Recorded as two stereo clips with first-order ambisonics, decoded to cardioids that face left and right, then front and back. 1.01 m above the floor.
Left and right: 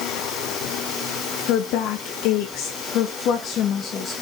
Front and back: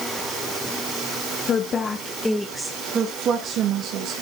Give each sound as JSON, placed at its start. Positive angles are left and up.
{"t": 1.5, "sound": "a woman speaking", "azimuth_deg": 60, "distance_m": 1.1}